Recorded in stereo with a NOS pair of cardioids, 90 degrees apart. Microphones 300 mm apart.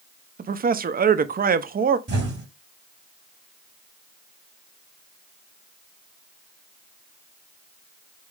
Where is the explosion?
35° right, 2 m.